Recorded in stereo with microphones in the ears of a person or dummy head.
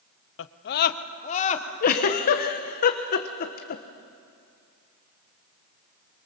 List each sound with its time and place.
0.4 s a scream: 70° left (ahead or behind), 0.9 m; by 1.7 s 30° left (ahead or behind), 1.8 m
1.8 s a giggle: 45° left (ahead or behind), 1.3 m